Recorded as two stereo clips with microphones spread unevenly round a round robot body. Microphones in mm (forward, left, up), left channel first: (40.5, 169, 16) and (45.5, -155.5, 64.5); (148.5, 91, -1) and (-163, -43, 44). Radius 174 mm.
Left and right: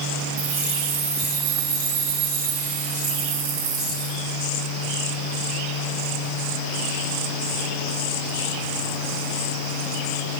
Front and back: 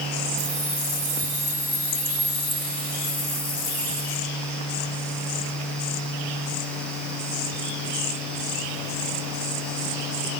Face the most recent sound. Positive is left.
turn(degrees=-50)